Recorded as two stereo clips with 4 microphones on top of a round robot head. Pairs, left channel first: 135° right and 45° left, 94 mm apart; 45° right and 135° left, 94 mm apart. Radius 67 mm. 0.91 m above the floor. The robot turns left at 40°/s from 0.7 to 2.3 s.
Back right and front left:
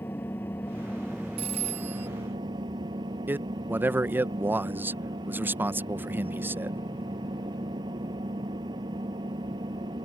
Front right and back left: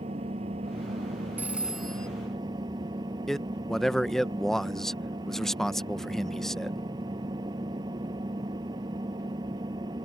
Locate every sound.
0.0 s an engine running: 155° left; by 10.1 s 90° left
1.4 s a phone ringing: 65° left; by 2.1 s 35° left
3.3 s a man speaking: 35° left